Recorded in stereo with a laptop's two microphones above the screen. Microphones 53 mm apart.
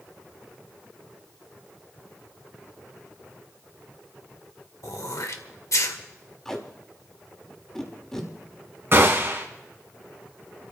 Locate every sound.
4.8 s throat clearing: 70° left (ahead or behind), 1.5 m
6.5 s tape being pulled: 10° left (ahead or behind), 3 m
8.9 s a gunshot: 45° right (ahead or behind), 2.5 m